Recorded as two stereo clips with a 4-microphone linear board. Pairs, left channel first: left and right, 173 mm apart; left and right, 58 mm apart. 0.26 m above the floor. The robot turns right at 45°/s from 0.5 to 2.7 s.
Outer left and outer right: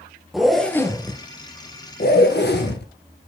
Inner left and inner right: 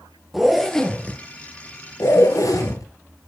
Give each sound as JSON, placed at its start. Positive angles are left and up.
{"t": 0.3, "sound": "a zipper", "azimuth_deg": 0, "distance_m": 1.5}